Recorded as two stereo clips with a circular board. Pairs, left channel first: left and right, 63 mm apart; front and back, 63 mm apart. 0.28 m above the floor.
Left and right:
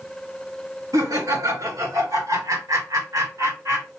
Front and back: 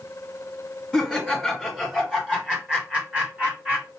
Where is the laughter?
90° right, 3.5 m; by 3.9 s 120° right, 3.5 m.